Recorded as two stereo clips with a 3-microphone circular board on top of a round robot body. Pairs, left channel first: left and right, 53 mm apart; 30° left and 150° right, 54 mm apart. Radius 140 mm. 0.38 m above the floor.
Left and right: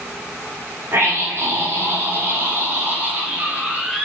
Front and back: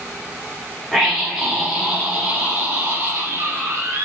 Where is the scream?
60° right, 2.5 m; by 4.0 s 155° right, 1.9 m.